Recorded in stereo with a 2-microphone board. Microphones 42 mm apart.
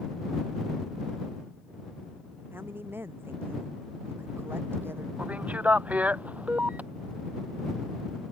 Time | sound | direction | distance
2.5 | a woman speaking | 65° right (ahead or behind) | ?
5.2 | a man speaking | 35° right (ahead or behind) | ?